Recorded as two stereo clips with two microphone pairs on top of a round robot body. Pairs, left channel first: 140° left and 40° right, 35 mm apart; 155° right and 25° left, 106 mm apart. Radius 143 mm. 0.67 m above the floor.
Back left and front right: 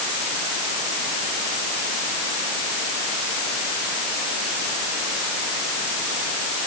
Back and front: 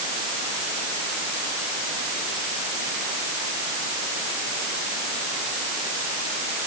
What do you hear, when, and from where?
Only background noise.